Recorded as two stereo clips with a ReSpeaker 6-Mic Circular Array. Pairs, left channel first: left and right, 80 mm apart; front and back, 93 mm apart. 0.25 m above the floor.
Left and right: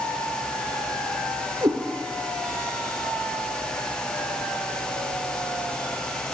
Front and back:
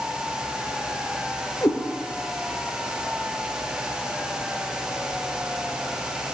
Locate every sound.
1.6 s a cat meowing: 60° right, 2.5 m